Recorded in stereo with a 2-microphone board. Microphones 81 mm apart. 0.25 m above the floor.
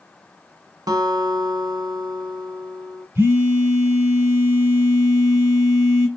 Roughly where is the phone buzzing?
Right.